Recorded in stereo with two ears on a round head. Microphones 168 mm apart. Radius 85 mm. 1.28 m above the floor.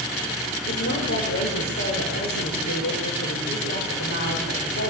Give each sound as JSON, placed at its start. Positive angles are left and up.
{"t": 0.7, "sound": "a woman speaking", "side_deg": 60, "distance_m": 6.0}